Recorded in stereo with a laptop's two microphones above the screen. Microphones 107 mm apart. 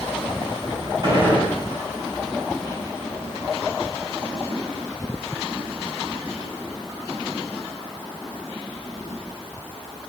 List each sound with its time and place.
1.0 s a gunshot: 45° right (ahead or behind), 3 m